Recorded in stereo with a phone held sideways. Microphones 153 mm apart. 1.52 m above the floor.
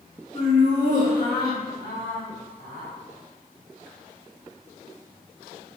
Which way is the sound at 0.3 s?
45° left (ahead or behind).